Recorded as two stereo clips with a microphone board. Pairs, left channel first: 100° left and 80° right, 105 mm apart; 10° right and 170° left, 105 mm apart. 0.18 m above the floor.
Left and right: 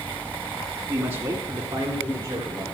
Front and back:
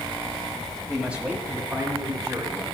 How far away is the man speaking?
About 1.0 m.